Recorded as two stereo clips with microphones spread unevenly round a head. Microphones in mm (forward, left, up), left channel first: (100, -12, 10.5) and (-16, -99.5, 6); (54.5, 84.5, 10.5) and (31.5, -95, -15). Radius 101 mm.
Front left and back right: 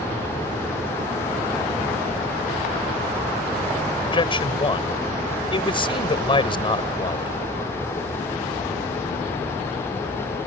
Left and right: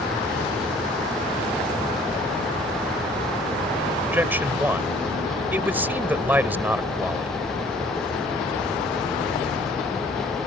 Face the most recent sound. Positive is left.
turn(degrees=-15)